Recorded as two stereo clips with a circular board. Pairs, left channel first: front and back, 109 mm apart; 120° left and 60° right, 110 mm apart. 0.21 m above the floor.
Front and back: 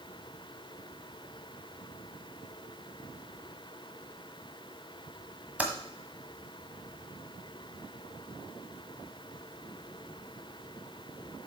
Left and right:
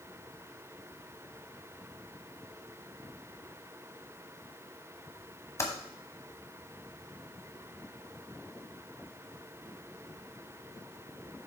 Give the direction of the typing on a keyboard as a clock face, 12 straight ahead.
8 o'clock.